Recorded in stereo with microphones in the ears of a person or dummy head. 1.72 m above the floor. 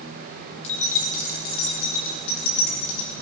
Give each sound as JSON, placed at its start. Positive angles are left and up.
{"t": 0.6, "sound": "keys jangling", "side_deg": 35, "distance_m": 1.6}